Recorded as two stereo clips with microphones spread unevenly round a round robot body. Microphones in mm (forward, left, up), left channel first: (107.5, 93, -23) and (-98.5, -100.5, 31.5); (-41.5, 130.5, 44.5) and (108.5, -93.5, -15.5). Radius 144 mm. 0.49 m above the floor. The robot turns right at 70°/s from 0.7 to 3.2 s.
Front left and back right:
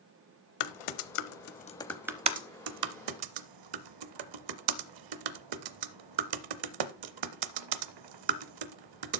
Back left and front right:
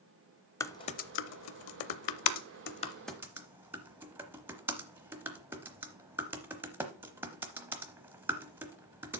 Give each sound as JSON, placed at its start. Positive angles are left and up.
{"t": 0.6, "sound": "typing on a keyboard", "azimuth_deg": 45, "distance_m": 0.7}